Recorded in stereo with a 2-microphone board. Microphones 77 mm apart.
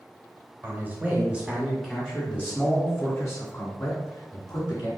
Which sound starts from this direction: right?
A man speaking, at 0.6 s.